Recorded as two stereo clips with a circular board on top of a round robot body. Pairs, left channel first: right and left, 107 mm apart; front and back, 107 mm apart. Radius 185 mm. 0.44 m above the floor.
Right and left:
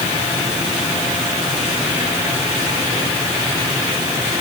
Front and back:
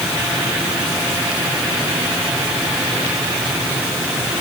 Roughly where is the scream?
No scream in this recording.